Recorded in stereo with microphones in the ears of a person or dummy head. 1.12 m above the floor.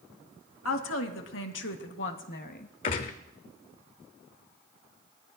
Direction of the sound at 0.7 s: 75° left (ahead or behind).